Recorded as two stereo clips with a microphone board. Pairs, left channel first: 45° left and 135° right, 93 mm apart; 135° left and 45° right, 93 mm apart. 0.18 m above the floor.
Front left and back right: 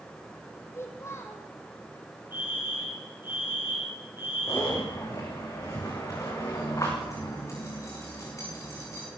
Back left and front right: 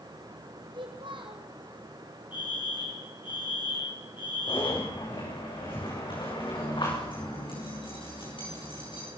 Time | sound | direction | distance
0.7 | a child speaking | 15° right | 4 m
2.3 | a fire alarm | 160° left | 5.5 m
4.5 | a zipper | 100° left | 8 m